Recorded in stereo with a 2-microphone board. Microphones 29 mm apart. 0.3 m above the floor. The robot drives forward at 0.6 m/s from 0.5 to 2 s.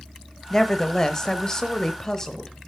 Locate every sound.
0.5 s a woman speaking: 15° left (ahead or behind), 1.1 m; by 2.5 s 20° left (ahead or behind), 1.0 m